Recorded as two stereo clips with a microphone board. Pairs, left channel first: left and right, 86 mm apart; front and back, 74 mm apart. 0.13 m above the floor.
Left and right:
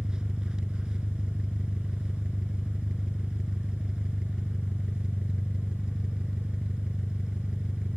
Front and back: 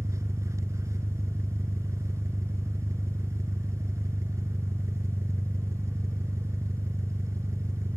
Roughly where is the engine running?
Behind.